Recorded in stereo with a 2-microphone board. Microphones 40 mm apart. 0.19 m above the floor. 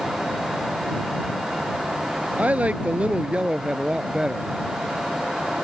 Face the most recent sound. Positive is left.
turn(degrees=-15)  # may be behind; listen again after turning